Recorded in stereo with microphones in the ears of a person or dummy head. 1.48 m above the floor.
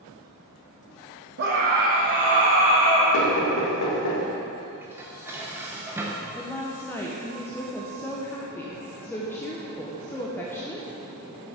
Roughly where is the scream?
Right.